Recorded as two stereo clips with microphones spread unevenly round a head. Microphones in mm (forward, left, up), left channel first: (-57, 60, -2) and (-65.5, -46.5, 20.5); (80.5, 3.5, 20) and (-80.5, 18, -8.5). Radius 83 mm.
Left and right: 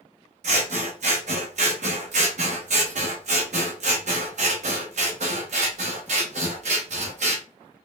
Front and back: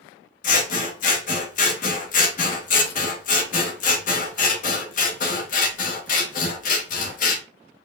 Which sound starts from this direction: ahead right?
Scissors, at 0.4 s.